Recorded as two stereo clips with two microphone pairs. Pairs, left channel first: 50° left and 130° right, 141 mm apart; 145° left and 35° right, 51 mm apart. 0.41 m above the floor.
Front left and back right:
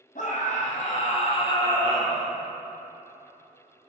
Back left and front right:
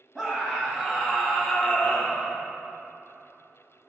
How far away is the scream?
About 2 m.